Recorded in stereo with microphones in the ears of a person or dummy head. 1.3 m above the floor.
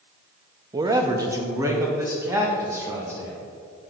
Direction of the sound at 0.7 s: 20° right (ahead or behind).